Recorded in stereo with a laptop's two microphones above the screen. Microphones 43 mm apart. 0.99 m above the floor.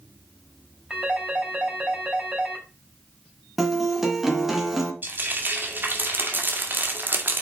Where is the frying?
50° right (ahead or behind), 2 m.